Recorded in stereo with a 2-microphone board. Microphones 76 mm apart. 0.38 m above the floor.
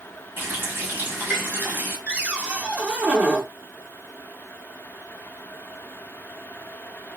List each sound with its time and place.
0.4 s a running tap: 30° right (ahead or behind), 1.5 m
2.1 s a cupboard door: 15° right (ahead or behind), 0.6 m